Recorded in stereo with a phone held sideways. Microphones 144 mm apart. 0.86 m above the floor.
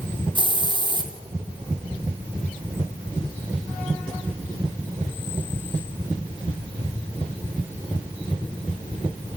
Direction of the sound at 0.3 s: 35° right (ahead or behind).